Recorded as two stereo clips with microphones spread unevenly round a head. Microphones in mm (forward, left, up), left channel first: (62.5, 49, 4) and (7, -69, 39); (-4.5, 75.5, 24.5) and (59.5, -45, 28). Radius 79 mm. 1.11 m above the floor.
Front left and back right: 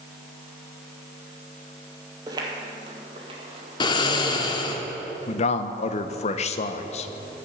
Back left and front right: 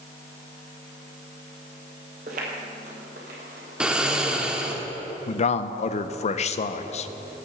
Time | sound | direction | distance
2.3 | footsteps | 80° right | 1.6 m
3.8 | snoring | 15° left | 0.7 m
5.3 | a man speaking | 85° left | 0.5 m